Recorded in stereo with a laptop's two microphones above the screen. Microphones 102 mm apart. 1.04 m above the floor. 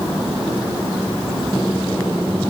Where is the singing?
I don't hear singing.